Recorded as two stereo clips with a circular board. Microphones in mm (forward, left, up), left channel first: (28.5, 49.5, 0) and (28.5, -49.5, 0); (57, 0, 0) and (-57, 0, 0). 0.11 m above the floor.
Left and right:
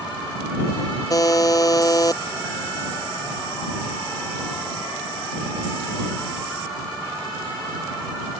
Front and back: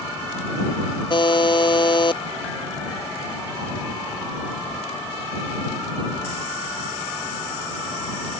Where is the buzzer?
40° left.